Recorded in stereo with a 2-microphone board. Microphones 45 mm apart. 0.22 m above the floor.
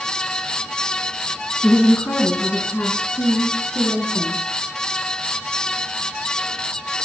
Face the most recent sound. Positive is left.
turn(degrees=55)  # may be behind; listen again after turning